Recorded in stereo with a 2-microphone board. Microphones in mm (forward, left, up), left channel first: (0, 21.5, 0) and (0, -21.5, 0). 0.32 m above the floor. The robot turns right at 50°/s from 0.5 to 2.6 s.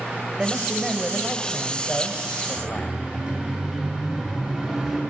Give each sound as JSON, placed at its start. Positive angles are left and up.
{"t": 0.4, "sound": "a man speaking", "azimuth_deg": -25, "distance_m": 1.8}
{"t": 2.6, "sound": "a siren", "side_deg": -35, "distance_m": 5.5}